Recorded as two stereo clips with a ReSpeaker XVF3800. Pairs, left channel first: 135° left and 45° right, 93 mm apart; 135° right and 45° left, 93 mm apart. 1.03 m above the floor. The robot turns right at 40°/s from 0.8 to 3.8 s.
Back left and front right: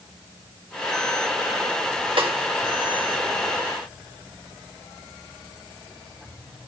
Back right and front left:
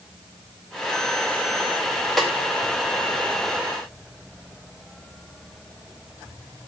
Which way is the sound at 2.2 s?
50° right.